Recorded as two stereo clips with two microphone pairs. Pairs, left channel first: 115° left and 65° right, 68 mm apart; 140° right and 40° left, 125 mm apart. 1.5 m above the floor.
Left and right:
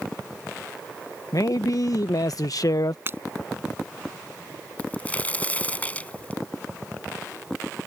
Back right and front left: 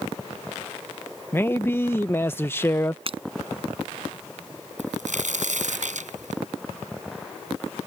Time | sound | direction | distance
1.3 | a man speaking | 145° left | ?
3.1 | breaking glass | 5° right | ?
4.8 | a crack | 50° left | ?